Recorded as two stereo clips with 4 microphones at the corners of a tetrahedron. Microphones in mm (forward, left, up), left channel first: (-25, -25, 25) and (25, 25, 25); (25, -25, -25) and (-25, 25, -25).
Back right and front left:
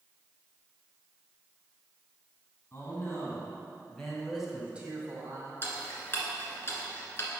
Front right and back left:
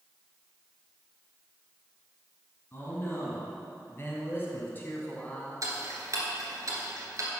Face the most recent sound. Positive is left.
turn(degrees=170)